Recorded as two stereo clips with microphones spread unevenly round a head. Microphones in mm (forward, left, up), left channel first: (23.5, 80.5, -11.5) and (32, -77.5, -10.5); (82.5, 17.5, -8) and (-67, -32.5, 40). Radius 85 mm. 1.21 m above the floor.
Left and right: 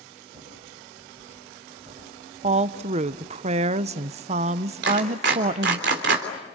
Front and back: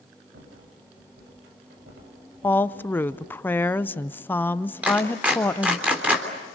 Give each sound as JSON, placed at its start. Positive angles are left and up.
{"t": 0.3, "sound": "a rattle", "azimuth_deg": -150, "distance_m": 7.0}
{"t": 2.4, "sound": "a woman speaking", "azimuth_deg": -45, "distance_m": 0.7}
{"t": 4.8, "sound": "a clap", "azimuth_deg": -80, "distance_m": 3.5}